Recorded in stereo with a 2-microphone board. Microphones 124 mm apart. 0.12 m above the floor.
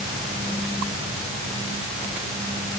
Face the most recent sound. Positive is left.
No sound to turn to.